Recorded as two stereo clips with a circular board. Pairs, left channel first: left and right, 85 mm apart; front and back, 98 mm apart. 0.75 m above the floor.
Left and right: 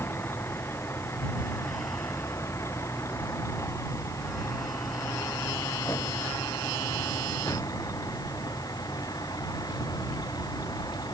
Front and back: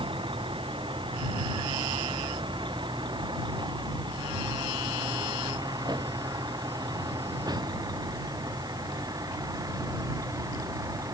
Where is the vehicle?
150° left; by 11.2 s 125° left.